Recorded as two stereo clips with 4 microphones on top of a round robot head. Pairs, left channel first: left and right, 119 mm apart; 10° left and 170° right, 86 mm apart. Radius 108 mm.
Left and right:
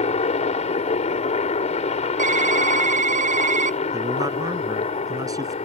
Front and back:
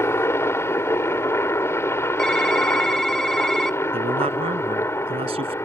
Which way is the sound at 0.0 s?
65° left.